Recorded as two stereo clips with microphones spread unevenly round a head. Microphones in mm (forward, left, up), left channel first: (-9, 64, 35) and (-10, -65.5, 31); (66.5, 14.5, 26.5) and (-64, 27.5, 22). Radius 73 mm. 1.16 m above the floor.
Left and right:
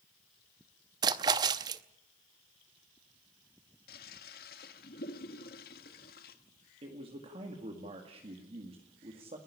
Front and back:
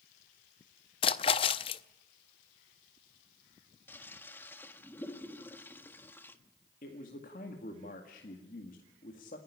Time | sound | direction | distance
1.0 | a splash | 35° right | 0.6 m
3.9 | a toilet flushing | 70° left | 1.5 m
6.8 | a man speaking | 40° right | 2 m